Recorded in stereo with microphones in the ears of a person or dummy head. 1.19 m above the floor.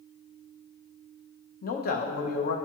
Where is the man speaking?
50° left (ahead or behind), 0.6 m.